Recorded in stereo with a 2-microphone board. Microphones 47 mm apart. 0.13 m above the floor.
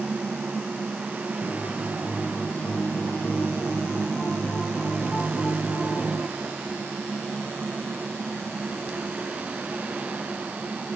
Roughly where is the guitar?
Left.